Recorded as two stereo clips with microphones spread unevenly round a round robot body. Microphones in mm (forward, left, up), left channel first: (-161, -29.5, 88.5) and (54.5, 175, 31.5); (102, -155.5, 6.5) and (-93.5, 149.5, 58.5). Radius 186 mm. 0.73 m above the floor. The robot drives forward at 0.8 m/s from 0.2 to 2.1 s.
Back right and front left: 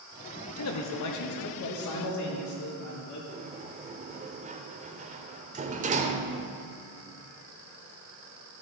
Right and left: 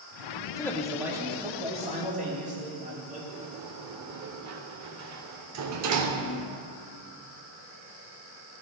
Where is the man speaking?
120° right, 0.8 m; by 3.2 s 165° right, 1.7 m.